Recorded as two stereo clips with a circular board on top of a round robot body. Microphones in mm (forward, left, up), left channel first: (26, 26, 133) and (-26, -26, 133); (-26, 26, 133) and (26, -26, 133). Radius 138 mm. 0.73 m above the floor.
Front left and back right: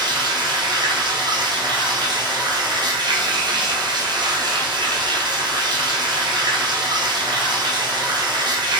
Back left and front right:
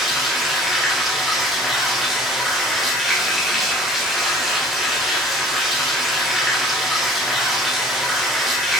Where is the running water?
135° right, 1.0 m.